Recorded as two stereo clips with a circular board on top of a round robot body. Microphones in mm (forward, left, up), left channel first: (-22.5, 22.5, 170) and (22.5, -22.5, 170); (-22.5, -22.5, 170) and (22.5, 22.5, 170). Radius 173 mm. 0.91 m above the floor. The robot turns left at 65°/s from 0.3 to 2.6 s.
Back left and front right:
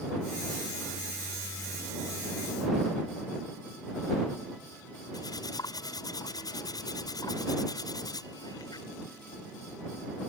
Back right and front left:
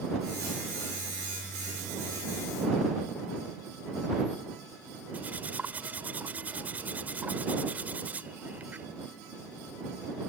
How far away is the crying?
No crying in this recording.